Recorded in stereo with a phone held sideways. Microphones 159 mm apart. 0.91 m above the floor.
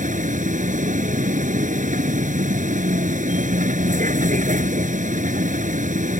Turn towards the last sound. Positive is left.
turn(degrees=-55)  # may be behind; listen again after turning